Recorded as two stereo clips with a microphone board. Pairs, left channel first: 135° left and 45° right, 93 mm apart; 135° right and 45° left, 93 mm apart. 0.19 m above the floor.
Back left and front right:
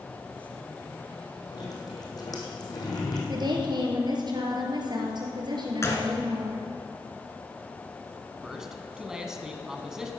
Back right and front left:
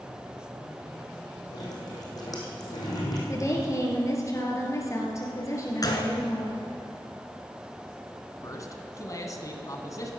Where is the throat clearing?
I don't hear throat clearing.